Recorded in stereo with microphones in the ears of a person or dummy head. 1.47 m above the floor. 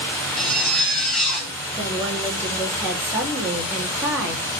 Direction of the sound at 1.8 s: 5° right (ahead or behind).